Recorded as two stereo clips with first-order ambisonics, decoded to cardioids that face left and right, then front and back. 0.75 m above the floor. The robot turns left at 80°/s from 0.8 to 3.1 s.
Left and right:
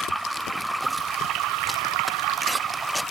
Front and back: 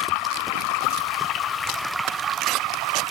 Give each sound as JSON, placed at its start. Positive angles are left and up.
{"t": 0.0, "sound": "running water", "azimuth_deg": 0, "distance_m": 1.1}